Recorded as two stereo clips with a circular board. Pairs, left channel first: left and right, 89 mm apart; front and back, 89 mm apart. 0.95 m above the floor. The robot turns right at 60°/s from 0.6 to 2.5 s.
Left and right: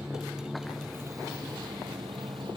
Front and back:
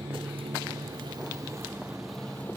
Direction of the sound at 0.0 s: 170° right.